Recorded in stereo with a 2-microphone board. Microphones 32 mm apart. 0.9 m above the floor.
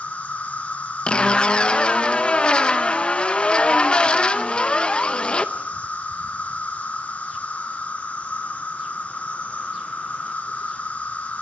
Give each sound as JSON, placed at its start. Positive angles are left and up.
{"t": 0.0, "sound": "an insect", "side_deg": 45, "distance_m": 1.7}
{"t": 1.1, "sound": "a zipper", "side_deg": 35, "distance_m": 0.9}